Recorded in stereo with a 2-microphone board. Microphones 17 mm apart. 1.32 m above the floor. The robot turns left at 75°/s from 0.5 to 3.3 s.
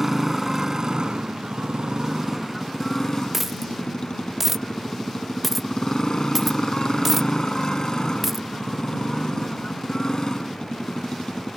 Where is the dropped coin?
15° right (ahead or behind).